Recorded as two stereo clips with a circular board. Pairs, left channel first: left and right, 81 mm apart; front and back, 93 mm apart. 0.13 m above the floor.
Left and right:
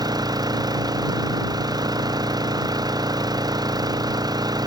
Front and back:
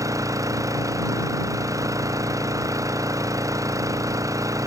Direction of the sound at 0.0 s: 125° right.